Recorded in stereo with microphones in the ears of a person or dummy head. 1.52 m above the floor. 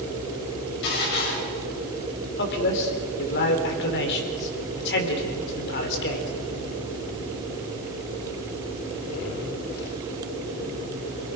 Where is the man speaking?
60° left (ahead or behind), 4.5 m.